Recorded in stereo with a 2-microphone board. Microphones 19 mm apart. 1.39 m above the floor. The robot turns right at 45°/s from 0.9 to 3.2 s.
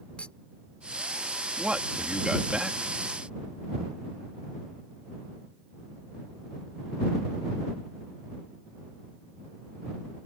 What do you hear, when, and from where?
0.2 s a clink: 70° left (ahead or behind); by 1.5 s 55° left (ahead or behind)
1.6 s a man speaking: 90° right; by 2.9 s 30° right